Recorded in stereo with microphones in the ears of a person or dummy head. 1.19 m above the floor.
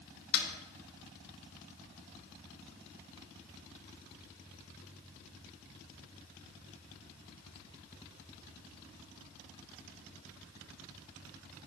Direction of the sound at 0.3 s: 80° left.